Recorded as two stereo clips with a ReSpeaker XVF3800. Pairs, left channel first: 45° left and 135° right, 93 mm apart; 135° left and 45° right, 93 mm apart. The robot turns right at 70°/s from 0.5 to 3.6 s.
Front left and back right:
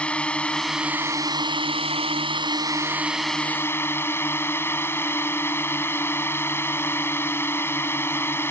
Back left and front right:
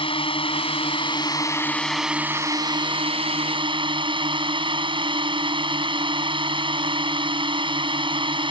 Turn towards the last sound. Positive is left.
turn(degrees=-20)